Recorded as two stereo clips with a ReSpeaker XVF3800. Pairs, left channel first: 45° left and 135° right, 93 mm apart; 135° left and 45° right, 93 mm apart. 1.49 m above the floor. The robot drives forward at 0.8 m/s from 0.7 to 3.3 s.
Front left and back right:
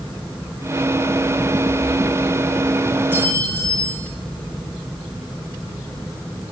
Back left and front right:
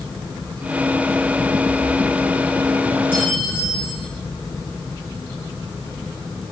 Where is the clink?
65° right, 9 m; by 4.1 s 70° right, 9 m.